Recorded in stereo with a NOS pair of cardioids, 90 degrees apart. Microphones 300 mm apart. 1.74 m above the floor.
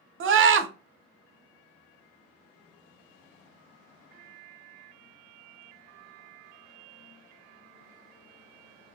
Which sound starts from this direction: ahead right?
A scream, at 0.2 s.